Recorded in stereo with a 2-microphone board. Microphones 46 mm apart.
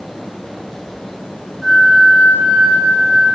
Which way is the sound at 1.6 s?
Centre (ahead or behind).